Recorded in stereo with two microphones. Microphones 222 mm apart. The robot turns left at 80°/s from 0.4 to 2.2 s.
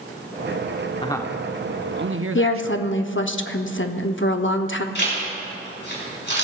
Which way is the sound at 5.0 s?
50° left (ahead or behind).